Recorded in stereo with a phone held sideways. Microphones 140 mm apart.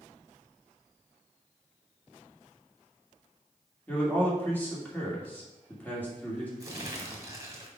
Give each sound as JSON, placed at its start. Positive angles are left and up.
{"t": 3.9, "sound": "a man speaking", "side_deg": 10, "distance_m": 2.5}
{"t": 6.6, "sound": "crumpling", "side_deg": -25, "distance_m": 1.5}